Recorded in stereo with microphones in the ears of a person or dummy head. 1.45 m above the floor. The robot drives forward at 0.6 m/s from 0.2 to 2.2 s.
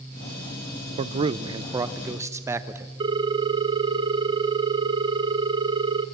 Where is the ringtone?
20° right (ahead or behind), 0.7 m.